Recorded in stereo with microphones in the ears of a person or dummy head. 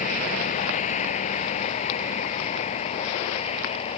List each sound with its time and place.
0.0 s a vehicle: 45° left (ahead or behind); by 4.0 s 35° left (ahead or behind)